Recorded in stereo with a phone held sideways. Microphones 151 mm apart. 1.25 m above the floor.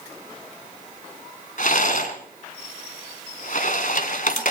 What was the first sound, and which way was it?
A rattle, 60° left (ahead or behind).